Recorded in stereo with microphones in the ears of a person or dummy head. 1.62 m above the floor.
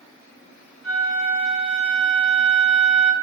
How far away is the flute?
About 1.8 m.